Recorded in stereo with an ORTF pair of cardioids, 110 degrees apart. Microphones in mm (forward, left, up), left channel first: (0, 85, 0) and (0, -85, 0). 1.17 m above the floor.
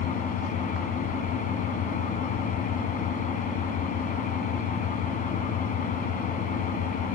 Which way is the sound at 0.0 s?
55° left.